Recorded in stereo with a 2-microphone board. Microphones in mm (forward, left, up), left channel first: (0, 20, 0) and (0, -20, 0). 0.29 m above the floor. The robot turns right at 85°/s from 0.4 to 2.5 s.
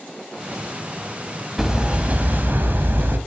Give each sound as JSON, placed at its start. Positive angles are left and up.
{"t": 1.6, "sound": "hammering", "azimuth_deg": -170, "distance_m": 1.0}